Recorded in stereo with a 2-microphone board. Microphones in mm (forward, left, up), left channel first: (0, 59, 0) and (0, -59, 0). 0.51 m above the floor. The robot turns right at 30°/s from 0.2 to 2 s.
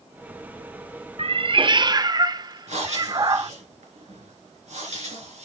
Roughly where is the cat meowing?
Right.